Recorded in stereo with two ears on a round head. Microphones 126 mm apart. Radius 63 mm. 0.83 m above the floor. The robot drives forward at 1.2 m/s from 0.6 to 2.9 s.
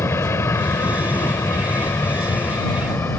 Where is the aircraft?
20° left (ahead or behind); by 3.2 s 15° left (ahead or behind).